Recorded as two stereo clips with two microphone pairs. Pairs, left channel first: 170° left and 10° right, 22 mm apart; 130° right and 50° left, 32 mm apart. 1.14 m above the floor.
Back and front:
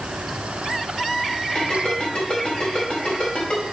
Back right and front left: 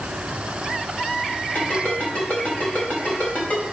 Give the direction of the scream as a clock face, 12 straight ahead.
I don't hear a scream.